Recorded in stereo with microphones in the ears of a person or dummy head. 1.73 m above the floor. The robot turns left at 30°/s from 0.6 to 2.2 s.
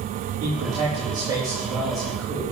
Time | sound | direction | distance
0.4 | a man speaking | 140° right | 4.5 m